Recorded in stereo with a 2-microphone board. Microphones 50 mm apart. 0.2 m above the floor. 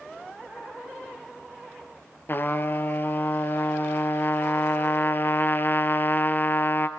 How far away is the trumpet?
About 1.1 m.